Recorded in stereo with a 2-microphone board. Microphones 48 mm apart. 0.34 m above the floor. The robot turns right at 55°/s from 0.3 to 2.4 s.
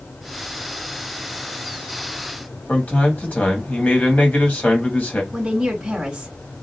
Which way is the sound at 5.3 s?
15° right (ahead or behind).